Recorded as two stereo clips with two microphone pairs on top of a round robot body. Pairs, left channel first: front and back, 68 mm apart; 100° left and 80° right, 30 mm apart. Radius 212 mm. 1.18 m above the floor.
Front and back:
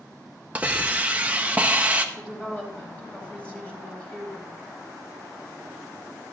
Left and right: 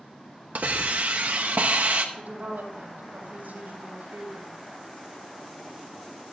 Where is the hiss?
110° right, 0.8 m.